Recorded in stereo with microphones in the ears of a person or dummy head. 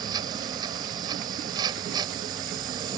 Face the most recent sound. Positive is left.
turn(degrees=-20)  # may be behind; listen again after turning